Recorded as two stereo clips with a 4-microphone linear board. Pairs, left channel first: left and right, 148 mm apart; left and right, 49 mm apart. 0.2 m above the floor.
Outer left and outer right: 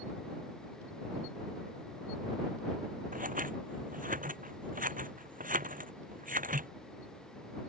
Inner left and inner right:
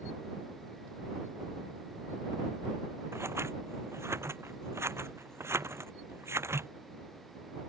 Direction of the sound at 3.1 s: 65° right (ahead or behind).